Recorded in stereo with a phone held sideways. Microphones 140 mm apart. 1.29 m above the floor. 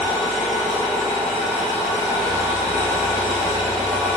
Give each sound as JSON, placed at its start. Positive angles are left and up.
{"t": 0.0, "sound": "an engine running", "side_deg": -25, "distance_m": 0.8}